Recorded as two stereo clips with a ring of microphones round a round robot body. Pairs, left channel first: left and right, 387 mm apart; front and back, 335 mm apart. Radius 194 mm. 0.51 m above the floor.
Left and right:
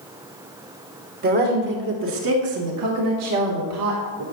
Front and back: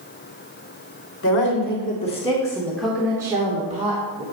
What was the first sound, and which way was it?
A woman speaking, 35° right.